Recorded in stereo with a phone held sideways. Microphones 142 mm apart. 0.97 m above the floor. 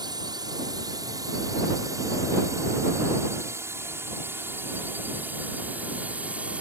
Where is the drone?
30° right (ahead or behind); by 6.6 s 10° right (ahead or behind).